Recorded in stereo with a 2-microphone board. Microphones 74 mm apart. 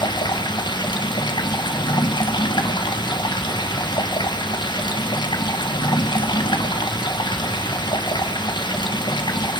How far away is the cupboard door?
I don't hear a cupboard door.